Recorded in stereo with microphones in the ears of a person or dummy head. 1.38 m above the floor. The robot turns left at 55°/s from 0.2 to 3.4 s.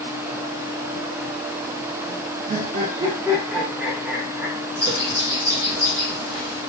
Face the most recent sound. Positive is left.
turn(degrees=-15)  # may be behind; listen again after turning